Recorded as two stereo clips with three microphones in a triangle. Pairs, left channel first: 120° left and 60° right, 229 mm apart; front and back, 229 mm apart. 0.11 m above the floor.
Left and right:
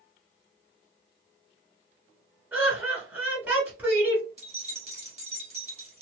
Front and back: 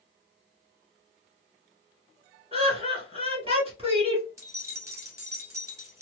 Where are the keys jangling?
105° right, 1.2 m.